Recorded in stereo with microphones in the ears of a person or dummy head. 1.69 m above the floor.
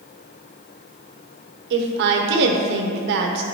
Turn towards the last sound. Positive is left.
turn(degrees=-60)  # may be behind; listen again after turning